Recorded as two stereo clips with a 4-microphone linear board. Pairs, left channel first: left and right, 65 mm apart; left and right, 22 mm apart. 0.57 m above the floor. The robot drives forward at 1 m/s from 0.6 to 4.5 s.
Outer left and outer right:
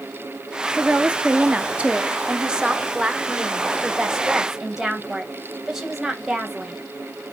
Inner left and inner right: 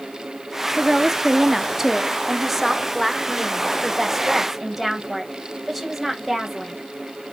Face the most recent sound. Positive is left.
turn(degrees=-5)  # may be behind; listen again after turning